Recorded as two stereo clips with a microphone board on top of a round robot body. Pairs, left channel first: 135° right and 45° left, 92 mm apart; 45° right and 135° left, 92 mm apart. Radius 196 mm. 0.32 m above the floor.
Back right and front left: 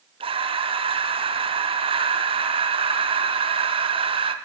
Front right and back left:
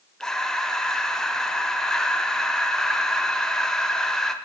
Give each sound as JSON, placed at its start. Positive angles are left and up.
{"t": 0.2, "sound": "breathing", "azimuth_deg": 40, "distance_m": 0.8}